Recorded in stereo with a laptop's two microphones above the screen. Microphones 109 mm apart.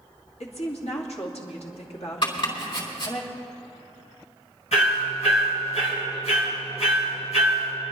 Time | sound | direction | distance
0.4 | a woman speaking | 65° left (ahead or behind) | 2 m
2.2 | chopping | 50° left (ahead or behind) | 3.5 m
4.7 | hammering | 75° left (ahead or behind) | 4 m